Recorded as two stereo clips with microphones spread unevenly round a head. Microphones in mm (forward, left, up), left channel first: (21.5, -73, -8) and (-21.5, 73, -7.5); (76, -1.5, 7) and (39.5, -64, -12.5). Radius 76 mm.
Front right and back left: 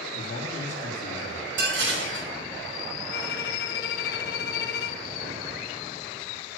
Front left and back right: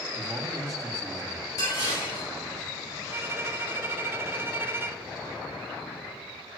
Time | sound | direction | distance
0.1 | a man speaking | 25° right | 3 m
1.6 | dishes clattering | 120° left | 5.5 m
3.1 | a violin | 55° right | 1.2 m